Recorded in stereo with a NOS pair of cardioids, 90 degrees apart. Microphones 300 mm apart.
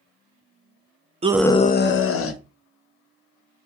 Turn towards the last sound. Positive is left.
turn(degrees=50)